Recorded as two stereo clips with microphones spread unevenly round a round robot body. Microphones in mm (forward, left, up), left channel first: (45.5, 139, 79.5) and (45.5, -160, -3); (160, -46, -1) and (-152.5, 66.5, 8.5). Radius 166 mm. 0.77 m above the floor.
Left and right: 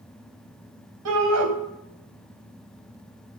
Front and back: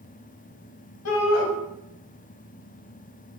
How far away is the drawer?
No drawer in this recording.